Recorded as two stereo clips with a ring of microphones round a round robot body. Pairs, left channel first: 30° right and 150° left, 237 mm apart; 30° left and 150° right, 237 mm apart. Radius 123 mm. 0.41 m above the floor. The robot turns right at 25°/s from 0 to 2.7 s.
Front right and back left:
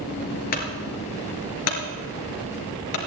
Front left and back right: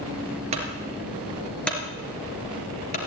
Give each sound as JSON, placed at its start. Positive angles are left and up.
{"t": 0.5, "sound": "a clunk", "azimuth_deg": -85, "distance_m": 3.0}